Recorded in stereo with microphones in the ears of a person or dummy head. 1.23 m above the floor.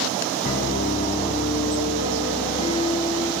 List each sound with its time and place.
0.4 s a piano: 45° left (ahead or behind), 1.7 m